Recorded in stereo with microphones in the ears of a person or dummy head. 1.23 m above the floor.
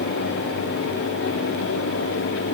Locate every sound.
Only background noise.